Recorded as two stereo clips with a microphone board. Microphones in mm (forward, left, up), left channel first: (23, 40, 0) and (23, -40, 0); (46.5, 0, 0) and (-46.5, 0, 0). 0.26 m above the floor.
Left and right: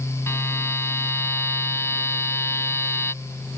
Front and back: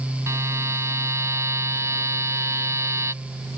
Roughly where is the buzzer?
Behind left.